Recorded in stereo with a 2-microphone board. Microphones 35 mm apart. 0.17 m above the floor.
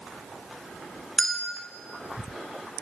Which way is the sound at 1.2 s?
15° left (ahead or behind).